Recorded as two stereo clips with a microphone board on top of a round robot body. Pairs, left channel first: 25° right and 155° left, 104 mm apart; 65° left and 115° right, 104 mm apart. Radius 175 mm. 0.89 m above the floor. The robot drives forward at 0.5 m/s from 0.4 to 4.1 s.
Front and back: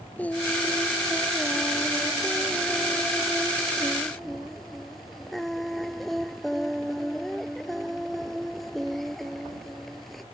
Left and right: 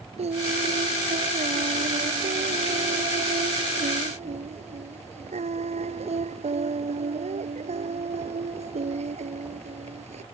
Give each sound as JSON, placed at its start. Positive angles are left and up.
{"t": 0.2, "sound": "singing", "azimuth_deg": -100}